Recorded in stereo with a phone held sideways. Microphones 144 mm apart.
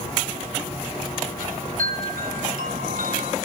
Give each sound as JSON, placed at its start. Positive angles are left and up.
{"t": 1.4, "sound": "a chime", "side_deg": -75, "distance_m": 4.0}